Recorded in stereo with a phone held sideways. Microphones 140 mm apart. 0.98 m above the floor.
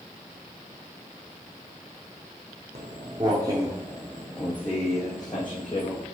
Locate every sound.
2.8 s footsteps: 45° right (ahead or behind), 2 m; by 6.0 s 40° left (ahead or behind), 3 m